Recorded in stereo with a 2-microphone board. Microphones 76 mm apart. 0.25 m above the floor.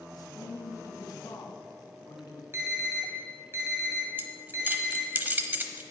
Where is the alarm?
35° right (ahead or behind), 2.5 m.